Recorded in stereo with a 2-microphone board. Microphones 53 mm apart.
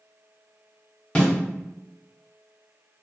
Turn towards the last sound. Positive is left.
turn(degrees=20)  # may be behind; listen again after turning